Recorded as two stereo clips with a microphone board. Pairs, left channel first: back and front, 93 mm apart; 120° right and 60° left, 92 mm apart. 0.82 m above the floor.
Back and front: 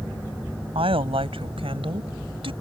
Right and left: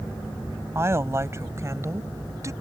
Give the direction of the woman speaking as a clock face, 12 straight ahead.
12 o'clock.